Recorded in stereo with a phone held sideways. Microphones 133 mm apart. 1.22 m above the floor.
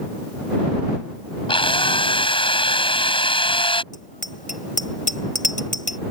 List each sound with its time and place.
1.5 s a drill: 40° left (ahead or behind)
3.9 s a bicycle bell: 75° left (ahead or behind)